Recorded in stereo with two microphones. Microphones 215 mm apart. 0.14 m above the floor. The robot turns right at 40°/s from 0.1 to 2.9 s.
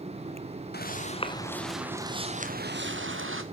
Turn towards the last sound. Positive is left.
turn(degrees=-70)  # may be behind; listen again after turning